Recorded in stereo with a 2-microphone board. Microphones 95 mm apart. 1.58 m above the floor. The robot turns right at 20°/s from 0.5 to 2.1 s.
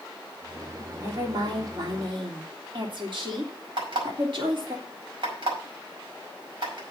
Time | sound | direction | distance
1.0 | a woman speaking | 40° right (ahead or behind) | 3 m
3.8 | an alarm clock | 65° right (ahead or behind) | 5.5 m